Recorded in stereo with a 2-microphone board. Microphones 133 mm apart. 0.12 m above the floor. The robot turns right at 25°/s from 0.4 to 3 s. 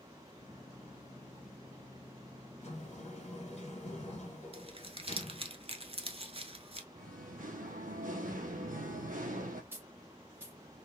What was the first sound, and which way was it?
A sliding door, 50° left (ahead or behind).